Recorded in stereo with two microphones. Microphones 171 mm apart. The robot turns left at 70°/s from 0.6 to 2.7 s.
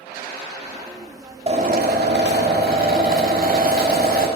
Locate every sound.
1.5 s a drill: 35° right, 2.5 m; by 4.3 s 125° right, 2.5 m